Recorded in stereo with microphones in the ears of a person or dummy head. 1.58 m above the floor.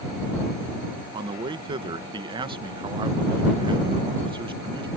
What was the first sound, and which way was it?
A man speaking, 30° right (ahead or behind).